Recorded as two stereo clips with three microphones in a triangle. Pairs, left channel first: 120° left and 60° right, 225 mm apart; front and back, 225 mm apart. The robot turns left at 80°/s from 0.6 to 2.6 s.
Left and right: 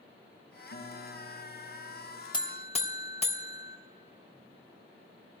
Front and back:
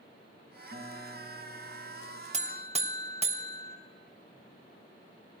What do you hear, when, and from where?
0.7 s a guitar: 140° left, 1.9 m; by 2.2 s 20° left, 1.9 m
2.3 s a buzzer: 170° left, 0.6 m; by 3.8 s 150° left, 0.6 m